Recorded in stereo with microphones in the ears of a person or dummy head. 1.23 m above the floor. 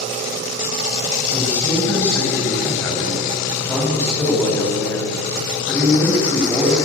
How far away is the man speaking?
About 6 m.